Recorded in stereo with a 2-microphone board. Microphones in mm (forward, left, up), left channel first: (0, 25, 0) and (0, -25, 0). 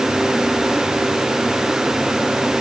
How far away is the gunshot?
No gunshot in this recording.